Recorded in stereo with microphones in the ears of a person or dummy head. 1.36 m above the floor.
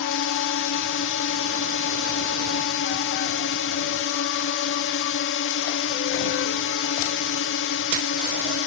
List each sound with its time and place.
0.0 s a drone: 60° left (ahead or behind)